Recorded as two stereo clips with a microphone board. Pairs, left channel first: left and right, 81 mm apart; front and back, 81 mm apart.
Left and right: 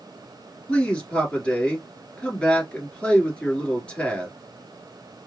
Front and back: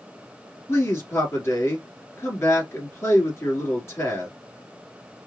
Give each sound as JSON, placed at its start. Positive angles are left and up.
{"t": 0.7, "sound": "a man speaking", "azimuth_deg": 20, "distance_m": 1.5}